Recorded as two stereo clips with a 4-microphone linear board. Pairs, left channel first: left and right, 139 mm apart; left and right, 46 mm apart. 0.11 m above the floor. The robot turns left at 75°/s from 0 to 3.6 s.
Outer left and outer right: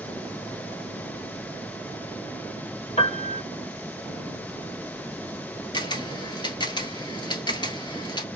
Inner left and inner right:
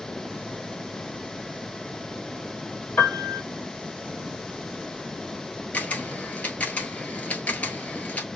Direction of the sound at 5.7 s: 35° left (ahead or behind).